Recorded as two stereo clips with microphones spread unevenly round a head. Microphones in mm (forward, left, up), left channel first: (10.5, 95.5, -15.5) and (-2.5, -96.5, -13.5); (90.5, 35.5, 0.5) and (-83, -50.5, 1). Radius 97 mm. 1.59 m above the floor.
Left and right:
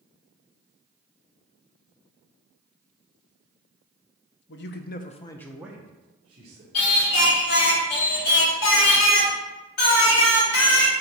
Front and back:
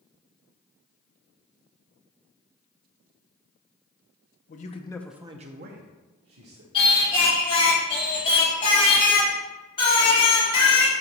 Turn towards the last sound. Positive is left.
turn(degrees=95)